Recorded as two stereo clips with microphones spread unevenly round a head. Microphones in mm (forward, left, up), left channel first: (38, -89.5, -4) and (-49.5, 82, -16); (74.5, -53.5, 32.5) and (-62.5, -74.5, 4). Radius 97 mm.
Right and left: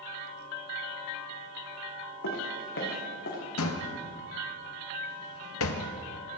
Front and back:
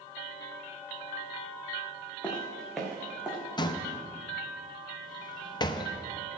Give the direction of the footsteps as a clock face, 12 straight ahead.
2 o'clock.